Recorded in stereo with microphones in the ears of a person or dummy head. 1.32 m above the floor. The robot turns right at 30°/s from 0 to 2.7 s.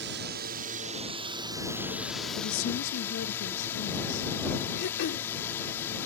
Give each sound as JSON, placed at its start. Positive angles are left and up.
{"t": 0.0, "sound": "a drone", "azimuth_deg": -60}
{"t": 2.4, "sound": "a woman speaking", "side_deg": 75}
{"t": 4.8, "sound": "throat clearing", "side_deg": 60}